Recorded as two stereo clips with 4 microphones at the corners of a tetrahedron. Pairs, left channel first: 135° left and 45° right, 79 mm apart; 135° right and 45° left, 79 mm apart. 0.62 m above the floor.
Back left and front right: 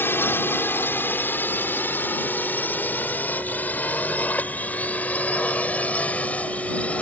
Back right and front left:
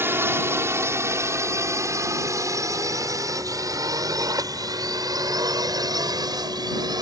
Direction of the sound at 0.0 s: 90° left.